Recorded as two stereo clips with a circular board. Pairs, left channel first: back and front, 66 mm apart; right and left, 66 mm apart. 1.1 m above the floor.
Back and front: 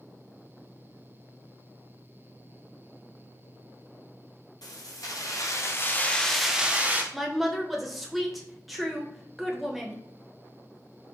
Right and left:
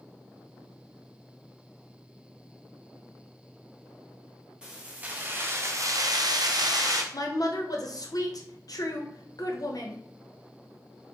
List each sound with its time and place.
4.6 s keys jangling: 165° left, 1.1 m; by 7.0 s 65° left, 0.8 m
7.1 s a woman speaking: 90° right, 0.8 m